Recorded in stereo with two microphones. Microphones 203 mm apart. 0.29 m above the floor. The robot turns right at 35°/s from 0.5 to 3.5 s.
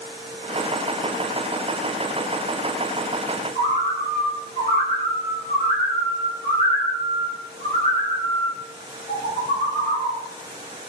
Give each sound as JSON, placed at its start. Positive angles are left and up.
{"t": 3.5, "sound": "a bird", "side_deg": -35, "distance_m": 1.3}